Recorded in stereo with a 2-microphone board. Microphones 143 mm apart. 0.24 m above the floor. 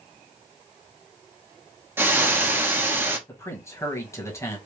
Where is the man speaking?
20° left (ahead or behind), 1.5 m.